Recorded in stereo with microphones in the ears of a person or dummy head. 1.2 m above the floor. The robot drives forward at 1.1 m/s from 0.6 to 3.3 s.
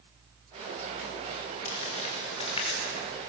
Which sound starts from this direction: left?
Crumpling, at 1.6 s.